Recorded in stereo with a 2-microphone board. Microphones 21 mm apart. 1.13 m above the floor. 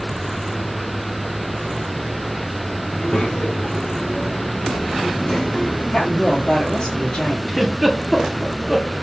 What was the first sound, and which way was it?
A child speaking, 85° left.